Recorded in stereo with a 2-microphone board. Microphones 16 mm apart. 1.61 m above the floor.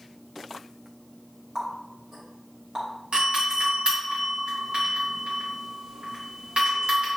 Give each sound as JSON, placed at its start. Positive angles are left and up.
{"t": 1.6, "sound": "a running tap", "side_deg": -50, "distance_m": 1.9}
{"t": 3.1, "sound": "a doorbell", "side_deg": -75, "distance_m": 2.0}